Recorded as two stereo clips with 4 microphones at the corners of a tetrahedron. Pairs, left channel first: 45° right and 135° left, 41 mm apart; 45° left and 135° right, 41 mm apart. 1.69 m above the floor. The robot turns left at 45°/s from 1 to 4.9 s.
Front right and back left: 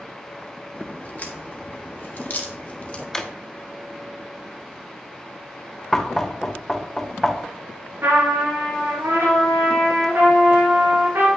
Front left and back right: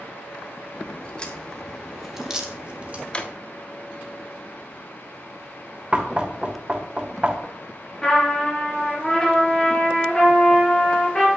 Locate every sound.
0.7 s a crack: 5° right, 1.5 m; by 3.0 s 100° right, 1.5 m
3.1 s a drawer: 25° left, 0.8 m; by 3.3 s 15° left, 0.8 m
5.9 s knocking: 120° right, 1.0 m
8.0 s a trumpet: 115° left, 3.5 m